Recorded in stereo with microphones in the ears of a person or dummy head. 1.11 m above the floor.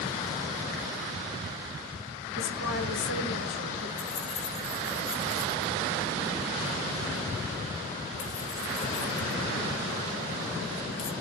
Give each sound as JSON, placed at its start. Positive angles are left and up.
{"t": 2.4, "sound": "a woman speaking", "side_deg": 65, "distance_m": 1.2}
{"t": 4.0, "sound": "keys jangling", "side_deg": 25, "distance_m": 1.3}